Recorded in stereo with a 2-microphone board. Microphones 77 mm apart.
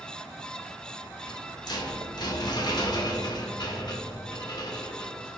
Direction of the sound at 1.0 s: 60° left (ahead or behind).